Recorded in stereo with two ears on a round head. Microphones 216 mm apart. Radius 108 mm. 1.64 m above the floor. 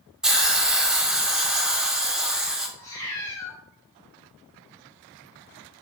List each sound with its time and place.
0.2 s a hiss: centre (ahead or behind), 0.7 m
2.8 s a cat meowing: 15° left (ahead or behind), 1.5 m